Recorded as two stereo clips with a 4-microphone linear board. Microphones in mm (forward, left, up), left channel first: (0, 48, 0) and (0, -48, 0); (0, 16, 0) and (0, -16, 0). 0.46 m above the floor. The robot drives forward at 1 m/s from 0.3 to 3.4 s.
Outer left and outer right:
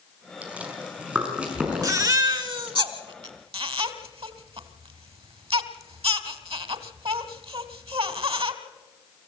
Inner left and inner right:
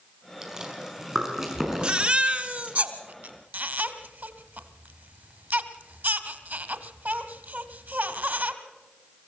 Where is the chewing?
15° right (ahead or behind), 4.5 m; by 2.8 s 10° right (ahead or behind), 7 m.